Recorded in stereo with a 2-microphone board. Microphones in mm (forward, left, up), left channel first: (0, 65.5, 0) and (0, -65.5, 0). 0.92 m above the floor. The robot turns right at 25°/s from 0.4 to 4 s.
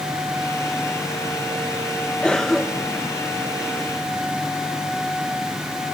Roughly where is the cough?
Centre.